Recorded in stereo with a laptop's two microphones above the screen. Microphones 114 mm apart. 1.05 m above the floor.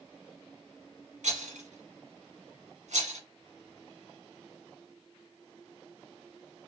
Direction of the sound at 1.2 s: 85° right.